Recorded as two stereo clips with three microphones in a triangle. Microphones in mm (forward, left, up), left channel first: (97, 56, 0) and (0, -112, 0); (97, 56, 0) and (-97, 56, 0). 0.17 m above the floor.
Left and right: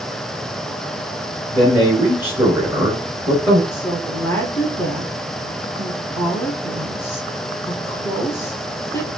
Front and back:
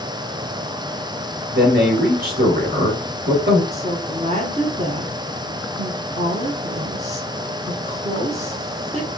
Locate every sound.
1.5 s a man speaking: 160° left, 2 m
3.7 s a woman speaking: 135° left, 1.6 m